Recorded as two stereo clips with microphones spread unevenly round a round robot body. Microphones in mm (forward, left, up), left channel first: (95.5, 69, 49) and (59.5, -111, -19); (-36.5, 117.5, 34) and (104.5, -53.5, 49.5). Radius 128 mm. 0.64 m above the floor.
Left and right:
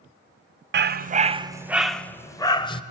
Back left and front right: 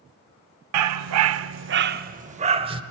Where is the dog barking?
65° right, 0.7 m; by 2.8 s 15° left, 1.1 m.